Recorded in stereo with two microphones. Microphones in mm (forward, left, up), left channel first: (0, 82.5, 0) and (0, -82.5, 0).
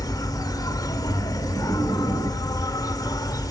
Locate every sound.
0.0 s an insect: 20° left (ahead or behind), 0.8 m